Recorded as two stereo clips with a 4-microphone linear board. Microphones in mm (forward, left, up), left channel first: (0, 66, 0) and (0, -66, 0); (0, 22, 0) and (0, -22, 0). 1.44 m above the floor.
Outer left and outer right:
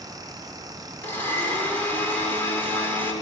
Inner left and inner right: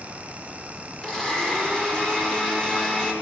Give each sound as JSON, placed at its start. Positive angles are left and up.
{"t": 1.0, "sound": "a blender", "side_deg": 15, "distance_m": 5.0}